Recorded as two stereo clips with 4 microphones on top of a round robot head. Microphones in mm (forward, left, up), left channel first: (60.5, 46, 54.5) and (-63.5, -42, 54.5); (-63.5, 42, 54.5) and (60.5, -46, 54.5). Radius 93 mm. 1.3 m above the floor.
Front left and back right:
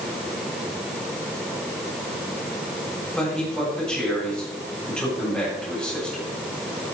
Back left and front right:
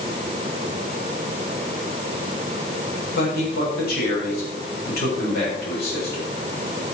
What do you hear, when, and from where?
3.1 s a man speaking: 120° left, 8 m